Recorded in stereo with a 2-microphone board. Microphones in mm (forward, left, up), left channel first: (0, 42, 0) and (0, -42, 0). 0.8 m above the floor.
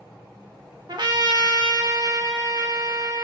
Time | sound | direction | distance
0.9 | a trumpet | 60° right (ahead or behind) | 0.6 m